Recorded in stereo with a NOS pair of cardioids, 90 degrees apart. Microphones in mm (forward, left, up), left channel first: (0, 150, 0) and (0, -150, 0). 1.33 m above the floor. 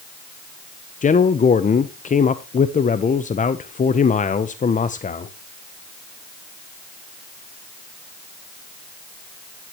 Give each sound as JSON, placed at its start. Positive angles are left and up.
{"t": 1.0, "sound": "a man speaking", "azimuth_deg": 25, "distance_m": 0.7}